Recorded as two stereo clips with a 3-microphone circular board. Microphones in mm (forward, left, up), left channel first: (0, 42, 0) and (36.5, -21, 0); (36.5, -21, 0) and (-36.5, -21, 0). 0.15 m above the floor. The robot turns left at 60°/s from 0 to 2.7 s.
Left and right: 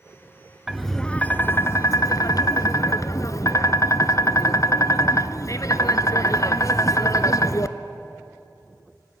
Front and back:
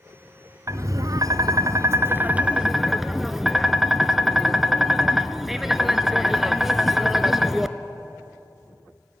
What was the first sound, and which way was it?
Tapping, 140° right.